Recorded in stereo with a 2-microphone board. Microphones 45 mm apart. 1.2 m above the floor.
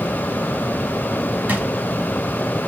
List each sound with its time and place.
1.5 s a drawer: 40° right (ahead or behind), 1.2 m